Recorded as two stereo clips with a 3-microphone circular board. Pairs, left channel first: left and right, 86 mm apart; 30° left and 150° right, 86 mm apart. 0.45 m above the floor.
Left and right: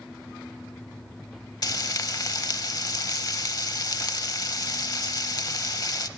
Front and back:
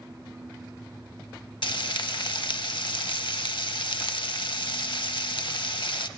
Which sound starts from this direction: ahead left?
Frying, at 1.6 s.